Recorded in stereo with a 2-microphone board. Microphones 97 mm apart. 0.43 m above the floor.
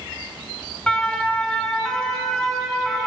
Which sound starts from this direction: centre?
A siren, at 0.9 s.